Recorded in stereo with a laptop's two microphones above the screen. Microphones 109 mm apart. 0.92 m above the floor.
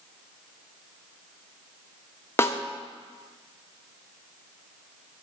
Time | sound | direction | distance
2.4 | a snare drum | 25° left (ahead or behind) | 0.7 m